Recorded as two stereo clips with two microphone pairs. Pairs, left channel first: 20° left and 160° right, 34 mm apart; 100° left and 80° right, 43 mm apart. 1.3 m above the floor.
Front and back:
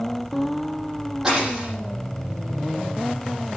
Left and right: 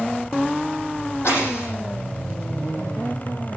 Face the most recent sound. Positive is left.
turn(degrees=125)